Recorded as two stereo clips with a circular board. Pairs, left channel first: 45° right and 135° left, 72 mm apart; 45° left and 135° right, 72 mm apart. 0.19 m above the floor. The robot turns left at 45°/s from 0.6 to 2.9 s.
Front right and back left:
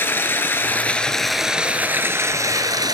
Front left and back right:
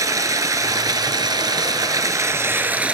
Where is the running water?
105° right, 0.9 m; by 3.0 s 155° left, 0.9 m.